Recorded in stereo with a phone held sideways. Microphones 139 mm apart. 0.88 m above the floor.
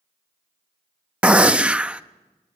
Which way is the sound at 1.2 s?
10° right (ahead or behind).